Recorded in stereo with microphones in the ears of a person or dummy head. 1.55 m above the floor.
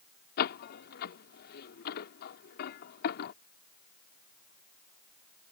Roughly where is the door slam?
Left.